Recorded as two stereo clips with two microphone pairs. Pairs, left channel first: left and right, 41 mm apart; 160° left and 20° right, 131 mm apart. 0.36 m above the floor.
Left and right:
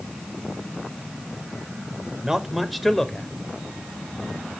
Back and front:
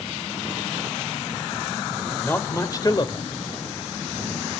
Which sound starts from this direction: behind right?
A man speaking, at 2.2 s.